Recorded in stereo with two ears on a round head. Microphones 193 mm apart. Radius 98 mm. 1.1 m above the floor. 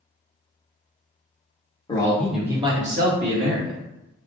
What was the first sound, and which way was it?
A man speaking, 20° left (ahead or behind).